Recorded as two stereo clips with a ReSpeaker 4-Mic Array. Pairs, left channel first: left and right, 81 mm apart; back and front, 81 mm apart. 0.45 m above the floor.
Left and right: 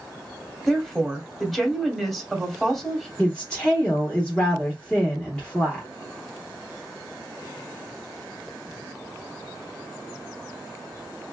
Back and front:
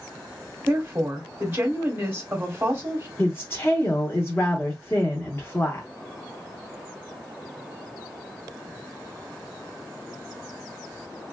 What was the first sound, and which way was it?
A woman speaking, straight ahead.